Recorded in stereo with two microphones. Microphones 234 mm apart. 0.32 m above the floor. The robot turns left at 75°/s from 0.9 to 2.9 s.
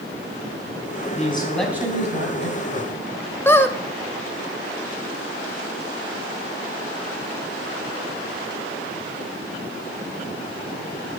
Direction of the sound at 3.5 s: 10° left (ahead or behind).